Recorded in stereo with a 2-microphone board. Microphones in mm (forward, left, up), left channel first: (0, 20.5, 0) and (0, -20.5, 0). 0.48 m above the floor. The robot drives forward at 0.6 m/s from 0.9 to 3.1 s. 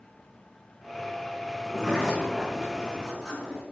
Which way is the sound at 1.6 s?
5° left (ahead or behind).